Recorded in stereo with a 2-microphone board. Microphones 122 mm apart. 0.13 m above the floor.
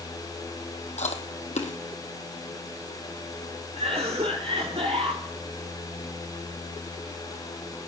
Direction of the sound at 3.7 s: 60° right (ahead or behind).